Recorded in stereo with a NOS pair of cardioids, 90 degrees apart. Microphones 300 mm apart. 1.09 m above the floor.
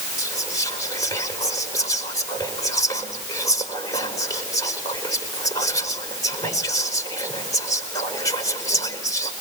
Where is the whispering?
10° left, 5 m.